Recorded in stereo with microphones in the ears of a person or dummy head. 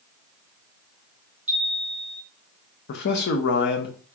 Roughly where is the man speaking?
Left.